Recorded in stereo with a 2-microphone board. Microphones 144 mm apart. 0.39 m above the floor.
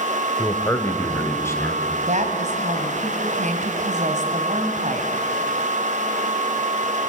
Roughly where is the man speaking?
Centre.